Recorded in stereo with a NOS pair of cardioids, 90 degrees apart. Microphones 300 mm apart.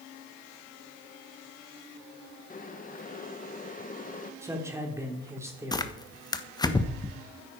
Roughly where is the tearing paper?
Ahead.